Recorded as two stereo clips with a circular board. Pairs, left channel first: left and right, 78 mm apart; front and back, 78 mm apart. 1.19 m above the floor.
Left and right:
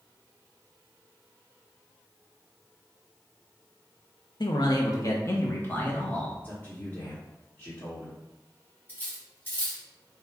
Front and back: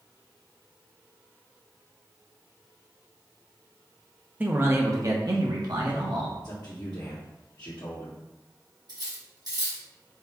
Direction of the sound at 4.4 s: 110° left.